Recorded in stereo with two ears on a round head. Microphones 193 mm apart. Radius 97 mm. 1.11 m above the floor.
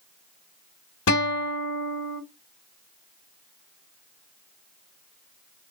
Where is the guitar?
80° left, 1.2 m.